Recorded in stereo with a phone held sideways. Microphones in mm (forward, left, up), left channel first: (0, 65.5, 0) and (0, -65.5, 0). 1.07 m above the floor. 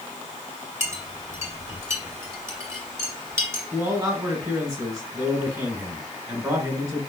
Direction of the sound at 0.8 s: 20° right (ahead or behind).